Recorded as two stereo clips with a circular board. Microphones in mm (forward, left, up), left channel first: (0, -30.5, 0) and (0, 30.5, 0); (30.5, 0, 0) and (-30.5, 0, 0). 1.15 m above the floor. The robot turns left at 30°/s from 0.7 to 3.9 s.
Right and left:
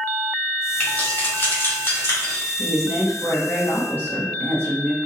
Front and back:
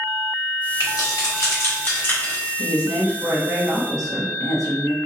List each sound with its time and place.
0.8 s keys jangling: 15° right, 2.0 m; by 2.5 s 70° right, 2.0 m
2.6 s a woman speaking: 105° right, 1.3 m; by 5.0 s 145° right, 1.3 m